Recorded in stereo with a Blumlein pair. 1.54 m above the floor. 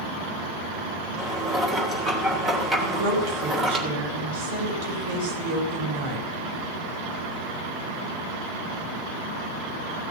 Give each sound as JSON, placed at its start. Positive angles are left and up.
{"t": 1.2, "sound": "dishes clattering", "azimuth_deg": -10, "distance_m": 3.0}
{"t": 2.8, "sound": "a woman speaking", "azimuth_deg": -50, "distance_m": 5.0}